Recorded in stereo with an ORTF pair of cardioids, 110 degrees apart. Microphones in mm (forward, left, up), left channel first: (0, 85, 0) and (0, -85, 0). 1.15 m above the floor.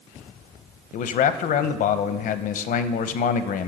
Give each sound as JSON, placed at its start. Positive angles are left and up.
{"t": 0.9, "sound": "a man speaking", "azimuth_deg": 60, "distance_m": 0.7}